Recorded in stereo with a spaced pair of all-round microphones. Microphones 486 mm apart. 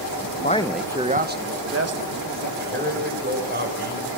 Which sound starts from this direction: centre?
A man speaking, at 0.4 s.